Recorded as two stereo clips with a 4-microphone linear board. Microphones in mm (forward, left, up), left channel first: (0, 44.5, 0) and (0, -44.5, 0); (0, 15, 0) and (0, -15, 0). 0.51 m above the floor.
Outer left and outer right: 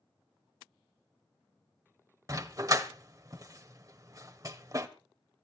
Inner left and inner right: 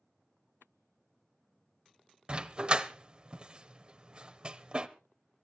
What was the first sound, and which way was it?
A dog barking, 40° right (ahead or behind).